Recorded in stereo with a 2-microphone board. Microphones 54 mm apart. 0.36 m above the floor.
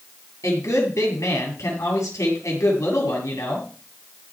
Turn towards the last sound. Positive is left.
turn(degrees=80)